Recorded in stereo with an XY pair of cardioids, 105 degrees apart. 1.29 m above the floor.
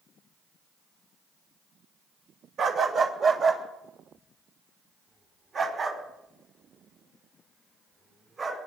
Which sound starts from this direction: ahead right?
A dog barking, at 2.6 s.